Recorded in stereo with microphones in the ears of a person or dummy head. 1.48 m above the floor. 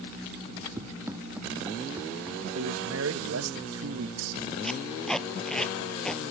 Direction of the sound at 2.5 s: 85° right.